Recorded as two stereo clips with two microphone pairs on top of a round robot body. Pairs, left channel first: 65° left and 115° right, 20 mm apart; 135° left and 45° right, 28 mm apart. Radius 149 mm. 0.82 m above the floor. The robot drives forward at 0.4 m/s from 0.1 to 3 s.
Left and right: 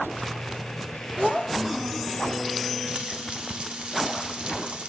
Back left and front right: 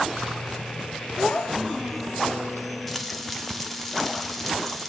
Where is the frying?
150° right, 0.6 m; by 4.9 s 155° right, 0.6 m.